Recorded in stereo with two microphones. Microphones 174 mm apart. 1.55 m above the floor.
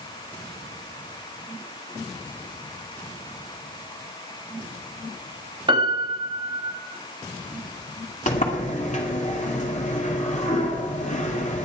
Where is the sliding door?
40° left (ahead or behind), 2.5 m.